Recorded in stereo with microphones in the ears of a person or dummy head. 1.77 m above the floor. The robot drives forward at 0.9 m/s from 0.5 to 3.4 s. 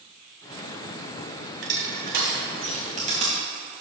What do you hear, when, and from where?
1.6 s crushing: 70° right (ahead or behind), 1.5 m; by 3.3 s 35° right (ahead or behind), 2.5 m